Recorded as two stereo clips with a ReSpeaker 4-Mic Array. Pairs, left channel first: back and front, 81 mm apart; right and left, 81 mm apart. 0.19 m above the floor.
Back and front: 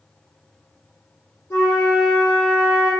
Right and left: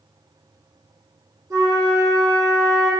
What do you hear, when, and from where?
1.5 s a flute: 130° left, 1.0 m